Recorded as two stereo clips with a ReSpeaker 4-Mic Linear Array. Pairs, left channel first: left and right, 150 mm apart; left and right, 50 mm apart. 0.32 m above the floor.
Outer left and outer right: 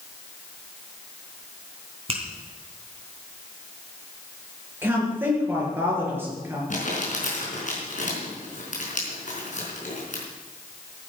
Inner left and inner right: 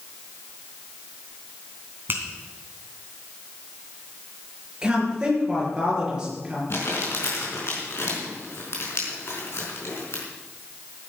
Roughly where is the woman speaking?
Centre.